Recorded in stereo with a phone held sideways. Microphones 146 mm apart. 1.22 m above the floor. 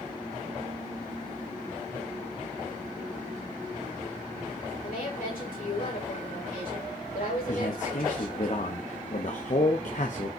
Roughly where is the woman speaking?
Left.